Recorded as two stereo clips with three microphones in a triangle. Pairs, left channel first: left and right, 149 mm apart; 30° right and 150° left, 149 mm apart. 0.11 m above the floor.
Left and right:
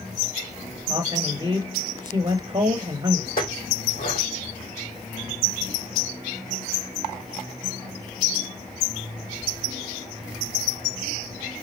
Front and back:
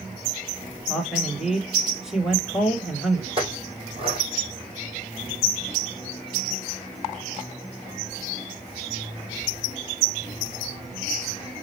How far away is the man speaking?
About 1.7 m.